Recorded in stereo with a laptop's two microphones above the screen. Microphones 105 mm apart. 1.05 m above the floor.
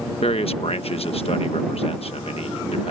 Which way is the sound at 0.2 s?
65° left (ahead or behind).